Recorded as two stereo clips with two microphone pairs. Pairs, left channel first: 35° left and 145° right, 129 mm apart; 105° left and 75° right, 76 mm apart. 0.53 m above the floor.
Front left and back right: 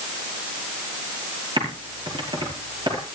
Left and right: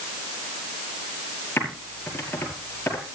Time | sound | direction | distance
1.6 | typing on a keyboard | 165° left | 5.5 m